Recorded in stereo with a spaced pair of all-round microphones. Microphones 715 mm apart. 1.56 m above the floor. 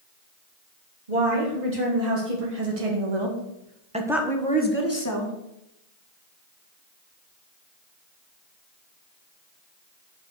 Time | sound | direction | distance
1.1 | a woman speaking | 80° right | 2.5 m